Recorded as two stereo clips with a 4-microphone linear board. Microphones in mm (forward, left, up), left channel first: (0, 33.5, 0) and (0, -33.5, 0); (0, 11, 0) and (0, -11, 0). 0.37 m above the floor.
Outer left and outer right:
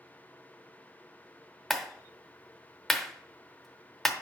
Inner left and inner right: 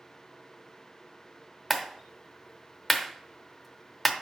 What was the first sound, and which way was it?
A clap, centre (ahead or behind).